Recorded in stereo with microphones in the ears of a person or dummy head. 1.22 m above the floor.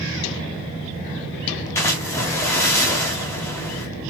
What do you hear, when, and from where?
1.8 s a splash: 15° left (ahead or behind), 0.7 m